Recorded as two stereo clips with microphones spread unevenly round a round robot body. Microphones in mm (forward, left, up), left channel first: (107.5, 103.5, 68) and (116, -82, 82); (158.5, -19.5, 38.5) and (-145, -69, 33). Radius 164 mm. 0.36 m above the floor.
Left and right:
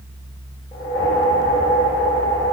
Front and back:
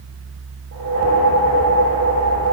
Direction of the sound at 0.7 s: 165° left.